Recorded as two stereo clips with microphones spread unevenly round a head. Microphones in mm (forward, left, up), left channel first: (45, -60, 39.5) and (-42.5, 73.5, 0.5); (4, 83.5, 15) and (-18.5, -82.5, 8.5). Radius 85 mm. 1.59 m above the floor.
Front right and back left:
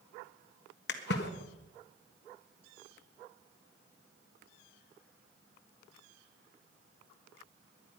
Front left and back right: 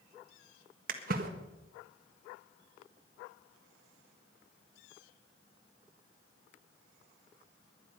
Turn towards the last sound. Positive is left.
turn(degrees=-60)